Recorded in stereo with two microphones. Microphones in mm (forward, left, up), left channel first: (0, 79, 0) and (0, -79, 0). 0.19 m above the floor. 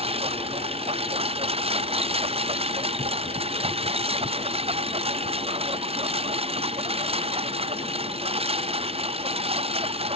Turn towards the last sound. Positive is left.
turn(degrees=-35)  # may be behind; listen again after turning